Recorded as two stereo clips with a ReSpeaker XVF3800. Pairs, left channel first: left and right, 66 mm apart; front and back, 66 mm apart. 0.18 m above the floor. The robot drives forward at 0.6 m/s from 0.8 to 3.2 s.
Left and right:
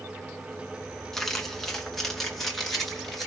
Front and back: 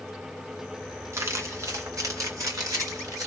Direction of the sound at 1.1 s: 170° left.